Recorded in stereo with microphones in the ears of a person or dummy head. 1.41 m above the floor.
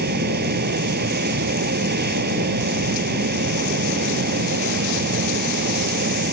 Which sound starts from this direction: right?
A fan, at 0.0 s.